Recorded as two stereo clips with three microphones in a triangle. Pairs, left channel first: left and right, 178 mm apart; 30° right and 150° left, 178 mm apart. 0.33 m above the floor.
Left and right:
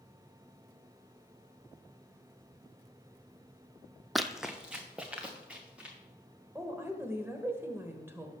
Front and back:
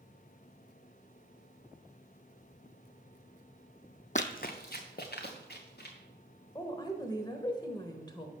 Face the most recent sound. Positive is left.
turn(degrees=-35)